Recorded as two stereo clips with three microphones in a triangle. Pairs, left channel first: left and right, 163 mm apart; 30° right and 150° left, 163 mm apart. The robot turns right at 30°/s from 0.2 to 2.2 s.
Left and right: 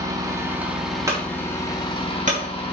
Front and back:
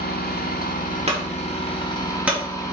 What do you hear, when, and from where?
0.0 s an engine running: 25° right, 1.6 m; by 2.7 s 35° left, 1.6 m
1.1 s a clunk: 160° right, 2.5 m; by 2.7 s 130° right, 2.5 m